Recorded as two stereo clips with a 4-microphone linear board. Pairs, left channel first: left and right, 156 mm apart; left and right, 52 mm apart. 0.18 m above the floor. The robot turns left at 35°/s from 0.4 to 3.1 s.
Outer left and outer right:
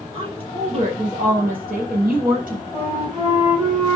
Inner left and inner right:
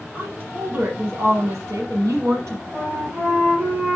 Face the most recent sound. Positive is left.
turn(degrees=-30)  # may be behind; listen again after turning